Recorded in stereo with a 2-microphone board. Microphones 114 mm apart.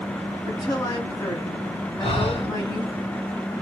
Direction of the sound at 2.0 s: 60° left (ahead or behind).